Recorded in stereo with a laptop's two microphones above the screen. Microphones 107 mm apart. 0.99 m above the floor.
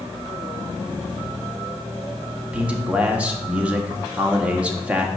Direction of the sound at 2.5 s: 10° right (ahead or behind).